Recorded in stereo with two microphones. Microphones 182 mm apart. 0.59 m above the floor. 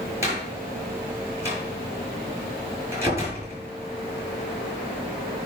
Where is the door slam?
15° right (ahead or behind), 6.5 m.